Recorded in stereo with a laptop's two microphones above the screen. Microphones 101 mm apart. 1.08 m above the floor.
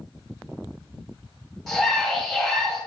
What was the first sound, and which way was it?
A scream, 5° left (ahead or behind).